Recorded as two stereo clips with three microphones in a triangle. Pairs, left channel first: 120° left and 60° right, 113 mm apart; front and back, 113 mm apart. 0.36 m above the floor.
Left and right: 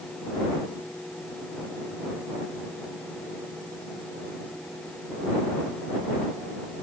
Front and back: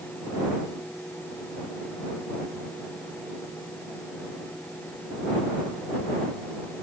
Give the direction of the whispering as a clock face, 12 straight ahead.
No whispering in this recording.